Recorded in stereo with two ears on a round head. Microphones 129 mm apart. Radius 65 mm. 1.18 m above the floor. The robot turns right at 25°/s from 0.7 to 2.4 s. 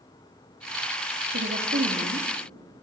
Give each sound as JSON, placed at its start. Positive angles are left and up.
{"t": 1.3, "sound": "a woman speaking", "side_deg": -85, "distance_m": 2.0}